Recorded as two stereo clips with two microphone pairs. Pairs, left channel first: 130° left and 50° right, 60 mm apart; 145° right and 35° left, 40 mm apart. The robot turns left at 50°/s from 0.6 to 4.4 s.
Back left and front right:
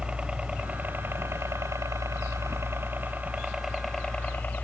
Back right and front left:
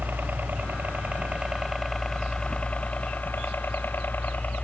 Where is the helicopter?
20° left; by 4.7 s 170° right.